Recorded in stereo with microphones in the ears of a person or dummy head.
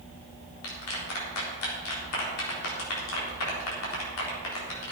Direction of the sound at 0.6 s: 80° left.